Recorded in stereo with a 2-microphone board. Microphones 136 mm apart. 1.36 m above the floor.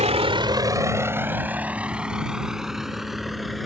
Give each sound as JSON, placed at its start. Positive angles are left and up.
{"t": 0.0, "sound": "a vehicle", "side_deg": -55}